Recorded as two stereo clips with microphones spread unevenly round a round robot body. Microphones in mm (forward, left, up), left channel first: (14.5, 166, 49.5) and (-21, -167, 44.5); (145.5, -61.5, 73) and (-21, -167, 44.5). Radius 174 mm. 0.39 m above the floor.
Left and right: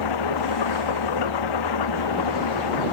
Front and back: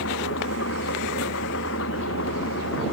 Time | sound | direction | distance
0.0 | an engine running | 75° left | ?